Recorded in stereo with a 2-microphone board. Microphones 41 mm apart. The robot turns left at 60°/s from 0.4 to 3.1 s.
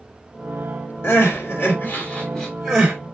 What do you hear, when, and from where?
1.0 s crying: 90° left, 1.9 m; by 3.0 s 25° right (ahead or behind), 1.9 m